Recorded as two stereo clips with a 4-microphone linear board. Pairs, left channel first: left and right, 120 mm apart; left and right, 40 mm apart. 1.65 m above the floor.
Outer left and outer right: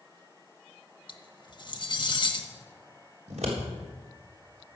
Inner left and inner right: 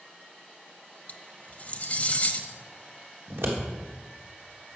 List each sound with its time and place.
1.1 s cutlery clinking: 40° left (ahead or behind), 1.2 m
3.3 s scissors: 70° right (ahead or behind), 3.5 m